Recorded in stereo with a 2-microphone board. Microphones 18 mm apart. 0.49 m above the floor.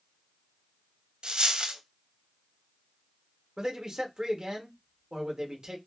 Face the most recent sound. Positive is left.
turn(degrees=-50)  # may be behind; listen again after turning